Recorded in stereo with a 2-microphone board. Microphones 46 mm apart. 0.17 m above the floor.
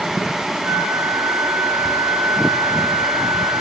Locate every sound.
0.6 s a flute: 85° right, 6.5 m